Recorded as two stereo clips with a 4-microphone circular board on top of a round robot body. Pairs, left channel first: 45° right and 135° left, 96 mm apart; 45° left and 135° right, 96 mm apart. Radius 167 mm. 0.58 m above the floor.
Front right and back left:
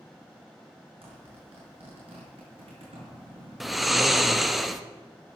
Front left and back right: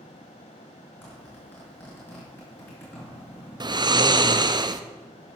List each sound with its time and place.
1.0 s a zipper: 115° left, 6 m
3.6 s snoring: 135° right, 1.1 m